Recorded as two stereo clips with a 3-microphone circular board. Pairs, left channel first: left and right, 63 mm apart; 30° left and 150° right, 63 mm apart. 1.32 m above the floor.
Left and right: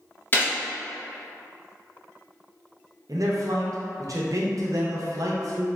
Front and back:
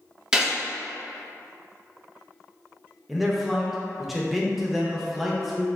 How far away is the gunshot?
About 0.7 m.